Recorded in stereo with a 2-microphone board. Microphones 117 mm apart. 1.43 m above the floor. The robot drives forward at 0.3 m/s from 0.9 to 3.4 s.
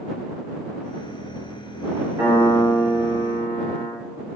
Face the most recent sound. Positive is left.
turn(degrees=-55)  # may be behind; listen again after turning